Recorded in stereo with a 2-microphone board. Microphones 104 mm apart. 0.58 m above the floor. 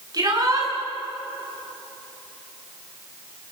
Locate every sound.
0.1 s a shout: 35° right (ahead or behind), 8 m